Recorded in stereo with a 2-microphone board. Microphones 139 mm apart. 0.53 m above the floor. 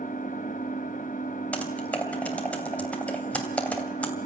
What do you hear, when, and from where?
0.0 s an engine running: 70° left (ahead or behind), 2 m
1.5 s typing on a keyboard: 10° left (ahead or behind), 2.5 m